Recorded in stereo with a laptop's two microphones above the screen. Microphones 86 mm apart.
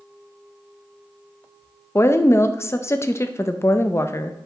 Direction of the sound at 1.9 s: 30° left (ahead or behind).